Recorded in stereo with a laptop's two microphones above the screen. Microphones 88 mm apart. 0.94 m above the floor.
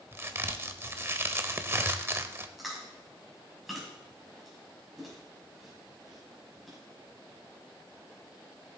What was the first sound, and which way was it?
A crack, 30° right (ahead or behind).